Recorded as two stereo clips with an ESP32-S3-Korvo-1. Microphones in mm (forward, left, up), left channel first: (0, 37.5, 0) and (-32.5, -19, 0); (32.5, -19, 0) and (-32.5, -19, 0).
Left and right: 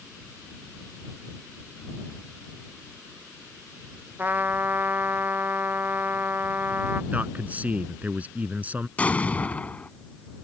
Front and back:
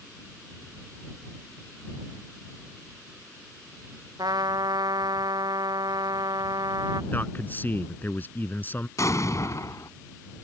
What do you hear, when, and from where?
4.2 s a trumpet: straight behind
7.1 s a man speaking: 55° right
9.0 s an explosion: straight ahead